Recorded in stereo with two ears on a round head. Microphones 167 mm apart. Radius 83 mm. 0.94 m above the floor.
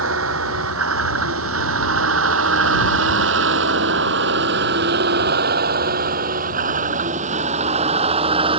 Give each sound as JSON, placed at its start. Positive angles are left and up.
{"t": 0.0, "sound": "a vehicle", "side_deg": -85}